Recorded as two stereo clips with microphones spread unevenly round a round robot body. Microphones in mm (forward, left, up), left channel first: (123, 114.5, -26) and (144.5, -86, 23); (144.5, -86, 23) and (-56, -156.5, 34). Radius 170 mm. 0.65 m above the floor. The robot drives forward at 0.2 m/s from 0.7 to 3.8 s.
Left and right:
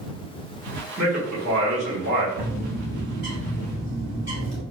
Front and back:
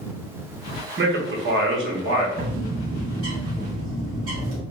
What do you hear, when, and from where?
1.0 s a man speaking: 135° right, 0.8 m; by 2.3 s 145° right, 1.0 m
2.4 s a bird: 140° right, 1.4 m; by 4.6 s 145° right, 1.7 m